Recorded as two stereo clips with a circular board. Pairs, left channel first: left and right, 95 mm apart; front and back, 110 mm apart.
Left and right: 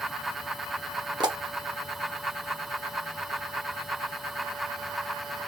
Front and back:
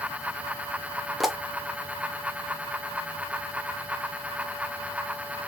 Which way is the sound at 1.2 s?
90° right.